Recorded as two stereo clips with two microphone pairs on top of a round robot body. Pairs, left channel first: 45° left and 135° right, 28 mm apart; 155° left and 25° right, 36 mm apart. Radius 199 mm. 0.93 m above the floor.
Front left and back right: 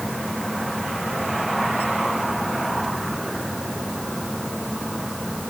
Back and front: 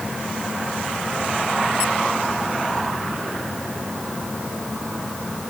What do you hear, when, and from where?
Only background noise.